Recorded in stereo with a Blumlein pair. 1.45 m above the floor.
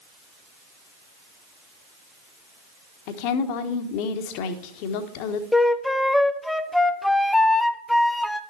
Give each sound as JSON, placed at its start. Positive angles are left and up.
{"t": 3.1, "sound": "a woman speaking", "azimuth_deg": 45, "distance_m": 1.3}
{"t": 5.5, "sound": "a flute", "azimuth_deg": 5, "distance_m": 0.5}